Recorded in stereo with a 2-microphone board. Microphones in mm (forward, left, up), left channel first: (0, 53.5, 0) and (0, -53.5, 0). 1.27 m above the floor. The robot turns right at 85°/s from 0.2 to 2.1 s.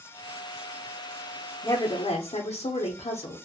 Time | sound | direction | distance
1.6 | a woman speaking | 30° left | 0.5 m